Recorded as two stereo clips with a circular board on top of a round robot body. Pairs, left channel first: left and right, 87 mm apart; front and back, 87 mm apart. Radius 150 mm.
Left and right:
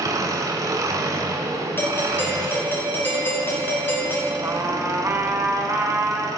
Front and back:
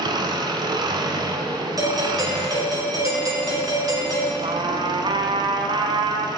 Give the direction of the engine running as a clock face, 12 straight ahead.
5 o'clock.